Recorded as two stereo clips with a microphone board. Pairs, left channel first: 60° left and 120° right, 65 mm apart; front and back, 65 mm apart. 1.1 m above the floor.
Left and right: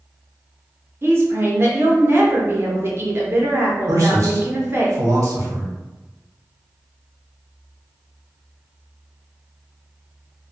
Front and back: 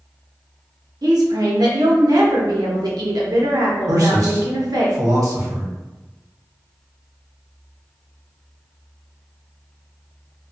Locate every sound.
1.0 s a woman speaking: 170° right, 0.7 m
3.9 s a man speaking: 155° right, 0.9 m